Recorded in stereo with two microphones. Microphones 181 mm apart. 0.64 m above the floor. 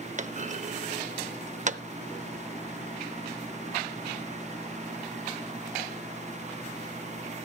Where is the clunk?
45° right (ahead or behind), 0.6 m.